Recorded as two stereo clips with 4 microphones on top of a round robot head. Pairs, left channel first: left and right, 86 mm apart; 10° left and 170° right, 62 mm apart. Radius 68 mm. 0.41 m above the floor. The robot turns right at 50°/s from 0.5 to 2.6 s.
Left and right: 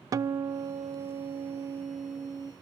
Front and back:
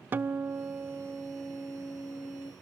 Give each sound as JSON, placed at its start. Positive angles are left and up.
{"t": 0.1, "sound": "a guitar", "azimuth_deg": -125, "distance_m": 0.6}